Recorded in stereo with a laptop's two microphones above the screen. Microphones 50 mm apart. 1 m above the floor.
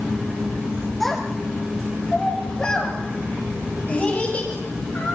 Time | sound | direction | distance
1.0 | a child speaking | 5° left (ahead or behind) | 3 m